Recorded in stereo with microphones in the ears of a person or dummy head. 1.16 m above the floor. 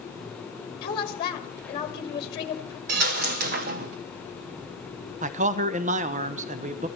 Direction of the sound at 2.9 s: 45° right (ahead or behind).